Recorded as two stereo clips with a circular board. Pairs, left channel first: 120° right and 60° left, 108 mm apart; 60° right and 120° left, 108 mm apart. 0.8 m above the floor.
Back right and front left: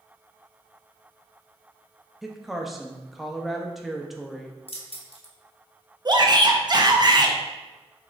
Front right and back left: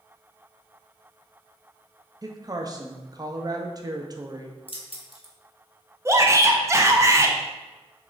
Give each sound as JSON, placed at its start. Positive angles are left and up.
{"t": 2.2, "sound": "a woman speaking", "azimuth_deg": 150, "distance_m": 0.5}
{"t": 4.7, "sound": "keys jangling", "azimuth_deg": -90, "distance_m": 0.7}
{"t": 6.0, "sound": "a shout", "azimuth_deg": 70, "distance_m": 0.6}